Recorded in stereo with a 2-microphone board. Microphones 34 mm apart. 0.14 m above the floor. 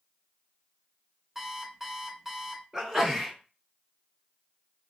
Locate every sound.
1.4 s an alarm clock: 10° right (ahead or behind), 0.8 m
2.7 s a sneeze: 10° right (ahead or behind), 1.4 m